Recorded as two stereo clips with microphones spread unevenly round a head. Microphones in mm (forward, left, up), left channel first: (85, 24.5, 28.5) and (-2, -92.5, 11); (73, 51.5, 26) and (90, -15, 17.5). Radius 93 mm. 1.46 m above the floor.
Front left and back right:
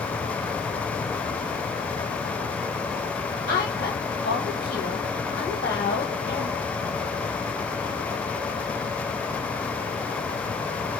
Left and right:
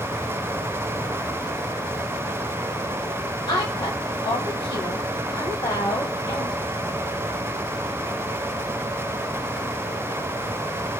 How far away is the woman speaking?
About 1.3 m.